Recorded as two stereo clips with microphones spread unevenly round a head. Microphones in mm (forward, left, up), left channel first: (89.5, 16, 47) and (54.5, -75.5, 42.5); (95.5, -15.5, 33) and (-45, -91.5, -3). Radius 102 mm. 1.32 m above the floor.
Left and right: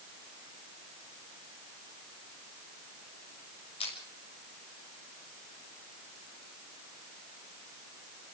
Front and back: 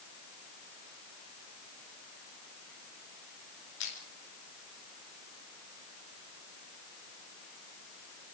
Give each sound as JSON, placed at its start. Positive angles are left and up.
{"t": 3.8, "sound": "crushing", "azimuth_deg": 60, "distance_m": 6.5}